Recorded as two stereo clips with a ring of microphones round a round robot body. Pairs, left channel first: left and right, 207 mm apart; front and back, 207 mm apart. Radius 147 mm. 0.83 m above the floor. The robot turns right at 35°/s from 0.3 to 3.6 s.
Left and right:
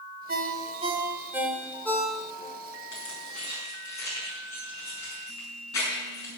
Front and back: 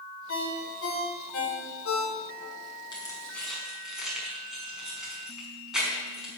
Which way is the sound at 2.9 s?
70° left.